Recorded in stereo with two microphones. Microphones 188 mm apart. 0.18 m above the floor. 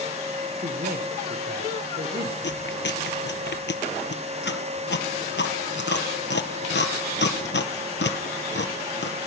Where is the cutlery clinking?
I don't hear cutlery clinking.